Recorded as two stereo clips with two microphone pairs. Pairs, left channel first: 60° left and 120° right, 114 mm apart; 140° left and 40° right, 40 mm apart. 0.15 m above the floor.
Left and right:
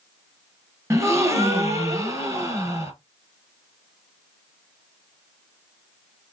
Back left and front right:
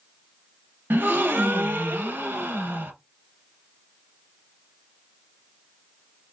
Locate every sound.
0.9 s a gasp: 60° right, 0.7 m